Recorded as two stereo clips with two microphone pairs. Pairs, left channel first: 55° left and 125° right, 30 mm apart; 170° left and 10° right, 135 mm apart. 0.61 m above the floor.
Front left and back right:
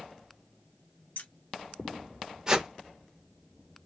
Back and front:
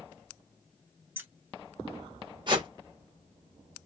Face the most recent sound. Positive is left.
turn(degrees=-60)